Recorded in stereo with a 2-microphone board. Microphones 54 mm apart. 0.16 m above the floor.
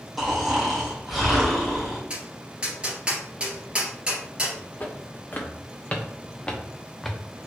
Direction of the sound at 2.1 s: 20° right (ahead or behind).